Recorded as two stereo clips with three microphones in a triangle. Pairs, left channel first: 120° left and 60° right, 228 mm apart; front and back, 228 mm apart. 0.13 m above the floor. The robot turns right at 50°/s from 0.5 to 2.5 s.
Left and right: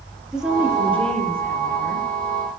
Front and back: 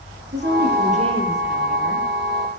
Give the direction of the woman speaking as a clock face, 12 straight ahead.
5 o'clock.